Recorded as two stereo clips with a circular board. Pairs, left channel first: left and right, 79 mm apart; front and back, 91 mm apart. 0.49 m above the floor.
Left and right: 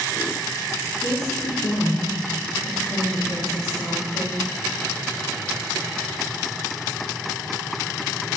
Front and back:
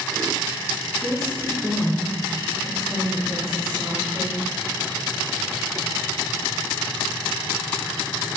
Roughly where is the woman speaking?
Left.